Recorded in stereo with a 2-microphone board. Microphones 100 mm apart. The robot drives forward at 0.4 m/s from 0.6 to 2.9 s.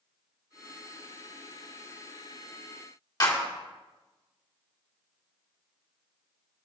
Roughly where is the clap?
Left.